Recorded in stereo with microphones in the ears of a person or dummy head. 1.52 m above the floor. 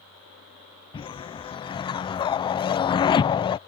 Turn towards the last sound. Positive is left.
turn(degrees=25)  # may be behind; listen again after turning